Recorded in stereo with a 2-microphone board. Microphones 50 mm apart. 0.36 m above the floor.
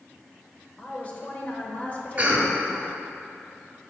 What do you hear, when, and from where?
0.8 s a woman speaking: 30° left (ahead or behind), 1.0 m
2.2 s a cough: 25° right (ahead or behind), 1.4 m